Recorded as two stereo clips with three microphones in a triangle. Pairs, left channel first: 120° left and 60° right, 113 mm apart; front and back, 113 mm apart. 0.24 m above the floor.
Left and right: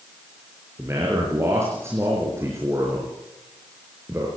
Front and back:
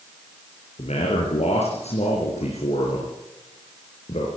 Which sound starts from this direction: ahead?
A man speaking, at 0.8 s.